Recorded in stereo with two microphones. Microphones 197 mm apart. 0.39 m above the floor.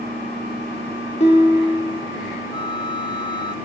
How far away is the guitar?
About 3 m.